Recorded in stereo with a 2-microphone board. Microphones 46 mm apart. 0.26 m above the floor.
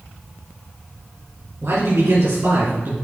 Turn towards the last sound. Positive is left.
turn(degrees=-45)  # may be behind; listen again after turning